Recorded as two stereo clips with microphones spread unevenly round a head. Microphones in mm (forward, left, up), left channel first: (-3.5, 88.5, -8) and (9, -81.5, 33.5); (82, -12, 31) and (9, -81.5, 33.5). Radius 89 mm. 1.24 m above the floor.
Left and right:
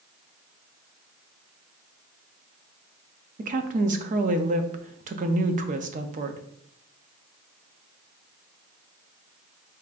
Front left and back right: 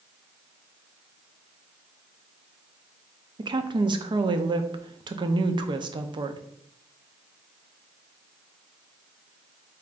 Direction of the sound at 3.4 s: 130° right.